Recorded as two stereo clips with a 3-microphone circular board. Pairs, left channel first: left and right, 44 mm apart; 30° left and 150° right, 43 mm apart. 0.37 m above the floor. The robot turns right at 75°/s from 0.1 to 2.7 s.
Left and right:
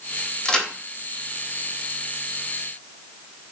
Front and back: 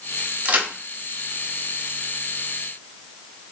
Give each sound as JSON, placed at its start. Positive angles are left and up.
{"t": 0.5, "sound": "a crack", "azimuth_deg": 155, "distance_m": 0.6}